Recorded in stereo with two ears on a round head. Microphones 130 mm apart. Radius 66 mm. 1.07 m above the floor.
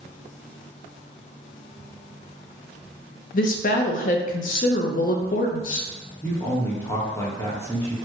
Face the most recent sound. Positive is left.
turn(degrees=15)  # may be behind; listen again after turning